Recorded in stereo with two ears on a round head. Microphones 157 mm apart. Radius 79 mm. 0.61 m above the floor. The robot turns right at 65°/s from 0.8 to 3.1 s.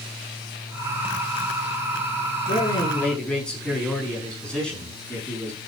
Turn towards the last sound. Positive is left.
turn(degrees=175)